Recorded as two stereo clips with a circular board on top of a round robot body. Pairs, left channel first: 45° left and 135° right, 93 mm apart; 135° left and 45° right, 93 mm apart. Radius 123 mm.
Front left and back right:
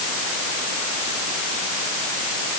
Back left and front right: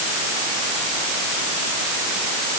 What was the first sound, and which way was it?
Only background noise.